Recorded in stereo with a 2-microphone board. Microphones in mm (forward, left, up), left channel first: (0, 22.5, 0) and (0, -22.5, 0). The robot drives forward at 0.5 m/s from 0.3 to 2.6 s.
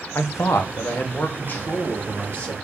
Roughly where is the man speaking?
Left.